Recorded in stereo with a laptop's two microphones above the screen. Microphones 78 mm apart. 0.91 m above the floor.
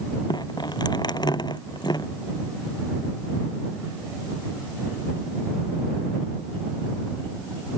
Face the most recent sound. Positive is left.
turn(degrees=55)  # may be behind; listen again after turning